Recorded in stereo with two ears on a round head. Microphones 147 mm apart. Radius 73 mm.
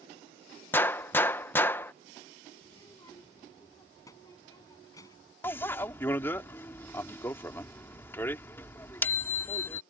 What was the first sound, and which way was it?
A gunshot, 15° left (ahead or behind).